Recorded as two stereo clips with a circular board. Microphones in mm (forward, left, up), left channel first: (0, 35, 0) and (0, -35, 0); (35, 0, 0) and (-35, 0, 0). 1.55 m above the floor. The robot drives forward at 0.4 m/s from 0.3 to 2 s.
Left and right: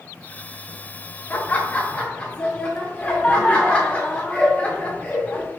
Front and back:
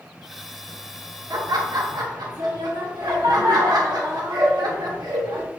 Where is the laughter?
150° left, 0.5 m; by 5.5 s 160° left, 0.8 m.